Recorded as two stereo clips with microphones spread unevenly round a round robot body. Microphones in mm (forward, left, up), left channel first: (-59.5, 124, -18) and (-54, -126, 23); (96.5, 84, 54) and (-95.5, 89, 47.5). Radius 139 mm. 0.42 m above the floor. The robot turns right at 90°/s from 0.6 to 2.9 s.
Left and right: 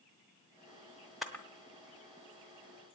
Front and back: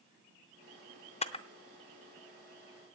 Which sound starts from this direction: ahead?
A camera shutter, at 1.2 s.